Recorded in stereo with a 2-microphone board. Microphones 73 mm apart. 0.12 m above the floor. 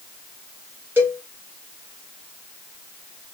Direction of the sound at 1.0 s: 25° right (ahead or behind).